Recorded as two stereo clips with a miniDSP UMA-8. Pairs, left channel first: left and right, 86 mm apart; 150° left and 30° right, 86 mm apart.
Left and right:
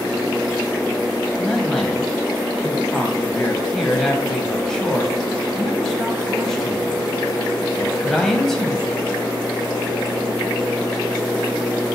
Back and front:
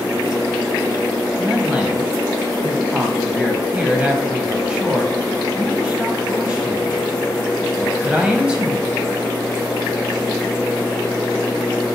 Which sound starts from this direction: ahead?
A man speaking, at 1.4 s.